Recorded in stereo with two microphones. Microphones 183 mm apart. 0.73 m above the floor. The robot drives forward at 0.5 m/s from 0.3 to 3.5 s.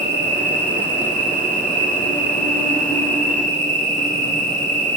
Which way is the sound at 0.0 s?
85° left.